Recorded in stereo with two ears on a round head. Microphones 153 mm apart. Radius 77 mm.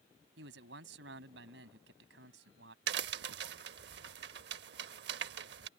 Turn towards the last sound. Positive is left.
turn(degrees=-70)  # may be behind; listen again after turning